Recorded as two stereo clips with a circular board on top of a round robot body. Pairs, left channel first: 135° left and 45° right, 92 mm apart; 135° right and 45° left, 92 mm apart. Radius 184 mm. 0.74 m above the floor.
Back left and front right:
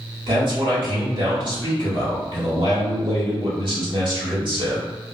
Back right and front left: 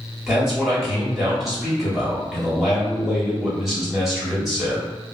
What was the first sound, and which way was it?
A man speaking, 40° right.